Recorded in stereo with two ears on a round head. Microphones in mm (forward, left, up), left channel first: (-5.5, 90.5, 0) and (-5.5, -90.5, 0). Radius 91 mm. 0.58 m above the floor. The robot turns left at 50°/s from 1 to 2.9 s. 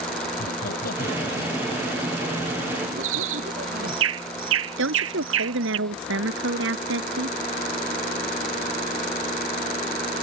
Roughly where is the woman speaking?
Right.